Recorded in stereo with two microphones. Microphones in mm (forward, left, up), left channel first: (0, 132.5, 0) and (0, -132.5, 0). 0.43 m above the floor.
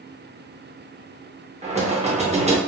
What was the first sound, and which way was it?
Knocking, 25° right (ahead or behind).